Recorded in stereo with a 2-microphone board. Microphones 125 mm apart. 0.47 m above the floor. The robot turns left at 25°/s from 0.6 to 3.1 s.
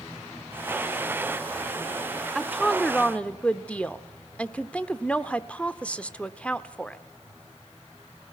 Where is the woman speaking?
Centre (ahead or behind), 0.9 m; by 7.0 s 10° left (ahead or behind), 0.9 m.